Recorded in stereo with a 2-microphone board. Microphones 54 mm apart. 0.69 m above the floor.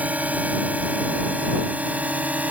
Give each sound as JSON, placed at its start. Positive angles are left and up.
{"t": 0.0, "sound": "a drone", "side_deg": -25}